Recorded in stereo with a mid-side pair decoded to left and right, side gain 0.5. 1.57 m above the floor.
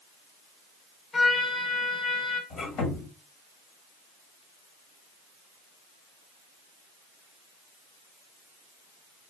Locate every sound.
1.1 s a trumpet: 30° left, 1.9 m
2.5 s a squeak: 60° left, 2.5 m